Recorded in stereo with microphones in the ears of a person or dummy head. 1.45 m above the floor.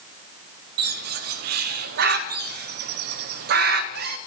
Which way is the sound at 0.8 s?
55° right (ahead or behind).